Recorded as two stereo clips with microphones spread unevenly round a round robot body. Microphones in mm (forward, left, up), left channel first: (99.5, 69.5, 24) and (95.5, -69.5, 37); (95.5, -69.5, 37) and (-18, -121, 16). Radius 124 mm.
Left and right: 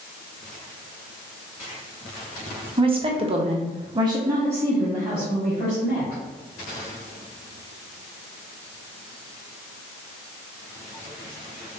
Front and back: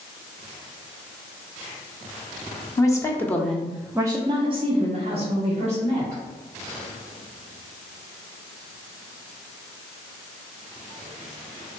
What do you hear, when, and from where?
2.8 s a woman speaking: 45° right, 0.9 m; by 6.2 s 175° left, 1.6 m